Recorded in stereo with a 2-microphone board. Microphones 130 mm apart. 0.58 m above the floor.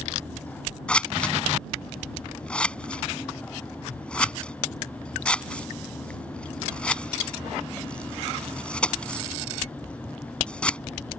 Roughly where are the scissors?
Centre.